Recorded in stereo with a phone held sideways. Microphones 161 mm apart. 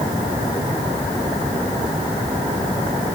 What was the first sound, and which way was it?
Only background noise.